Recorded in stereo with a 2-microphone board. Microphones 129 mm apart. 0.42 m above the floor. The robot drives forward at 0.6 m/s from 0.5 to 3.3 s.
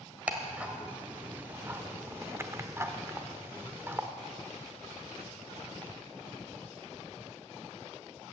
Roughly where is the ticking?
Centre.